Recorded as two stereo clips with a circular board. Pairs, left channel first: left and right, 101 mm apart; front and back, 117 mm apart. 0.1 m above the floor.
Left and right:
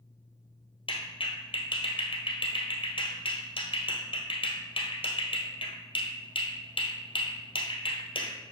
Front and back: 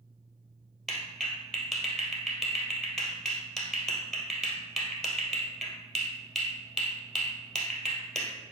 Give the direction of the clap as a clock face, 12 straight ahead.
9 o'clock.